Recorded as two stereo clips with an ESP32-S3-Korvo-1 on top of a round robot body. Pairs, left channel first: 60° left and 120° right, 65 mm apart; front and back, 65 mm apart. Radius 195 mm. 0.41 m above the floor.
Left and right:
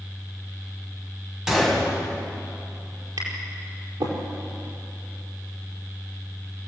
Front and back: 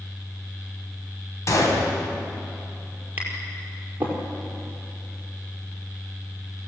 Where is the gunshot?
40° right, 4 m.